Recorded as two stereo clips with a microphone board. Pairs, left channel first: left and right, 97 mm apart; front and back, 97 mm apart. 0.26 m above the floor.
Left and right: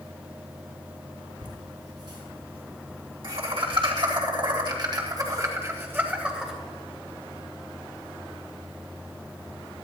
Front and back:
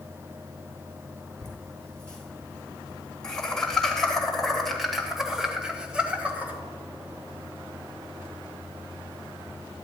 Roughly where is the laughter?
Right.